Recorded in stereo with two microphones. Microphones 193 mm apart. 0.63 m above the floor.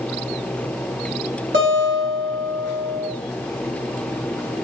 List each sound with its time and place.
1.5 s a guitar: 75° right (ahead or behind), 1.8 m